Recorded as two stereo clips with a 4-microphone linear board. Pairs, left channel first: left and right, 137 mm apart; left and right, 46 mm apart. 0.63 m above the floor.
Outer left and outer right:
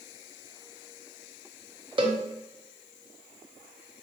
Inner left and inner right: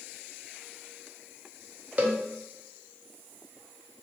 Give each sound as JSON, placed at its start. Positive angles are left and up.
{"t": 2.0, "sound": "a cowbell", "side_deg": -35, "distance_m": 0.6}